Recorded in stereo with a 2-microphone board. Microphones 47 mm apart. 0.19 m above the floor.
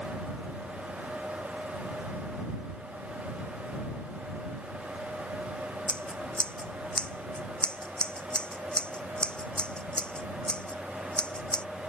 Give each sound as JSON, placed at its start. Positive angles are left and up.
{"t": 5.9, "sound": "scissors", "side_deg": 20}